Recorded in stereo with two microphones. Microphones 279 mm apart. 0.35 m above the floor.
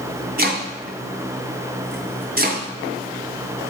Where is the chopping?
35° right (ahead or behind), 2 m.